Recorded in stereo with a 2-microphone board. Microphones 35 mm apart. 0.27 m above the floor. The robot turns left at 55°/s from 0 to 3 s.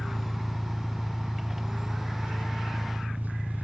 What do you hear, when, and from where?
0.0 s an engine running: 50° left, 1.1 m; by 3.6 s 115° right, 1.1 m